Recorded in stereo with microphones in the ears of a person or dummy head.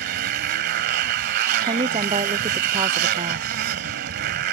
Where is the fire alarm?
No fire alarm in this recording.